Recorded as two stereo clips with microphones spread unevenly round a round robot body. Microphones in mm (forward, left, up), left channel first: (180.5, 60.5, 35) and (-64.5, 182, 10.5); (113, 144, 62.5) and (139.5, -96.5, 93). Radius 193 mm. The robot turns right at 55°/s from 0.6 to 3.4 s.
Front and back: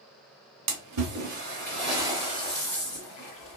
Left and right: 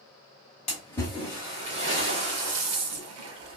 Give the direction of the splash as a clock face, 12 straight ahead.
7 o'clock.